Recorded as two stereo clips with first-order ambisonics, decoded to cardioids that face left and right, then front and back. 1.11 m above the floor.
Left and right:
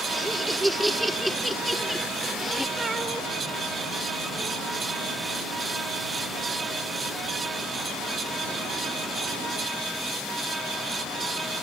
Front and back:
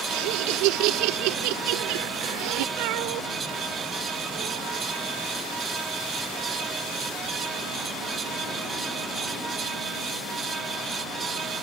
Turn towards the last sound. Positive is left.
turn(degrees=-170)